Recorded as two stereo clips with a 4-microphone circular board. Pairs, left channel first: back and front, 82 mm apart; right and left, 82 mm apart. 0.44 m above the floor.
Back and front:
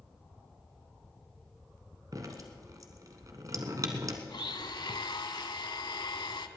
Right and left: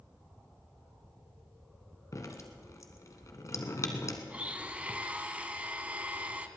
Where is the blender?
165° left, 0.8 m.